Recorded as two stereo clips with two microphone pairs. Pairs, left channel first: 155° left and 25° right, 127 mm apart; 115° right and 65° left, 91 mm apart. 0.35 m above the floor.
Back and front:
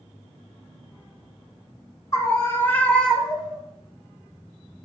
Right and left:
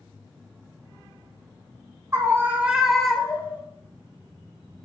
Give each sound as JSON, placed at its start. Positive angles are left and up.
{"t": 2.1, "sound": "a scream", "azimuth_deg": 105, "distance_m": 1.5}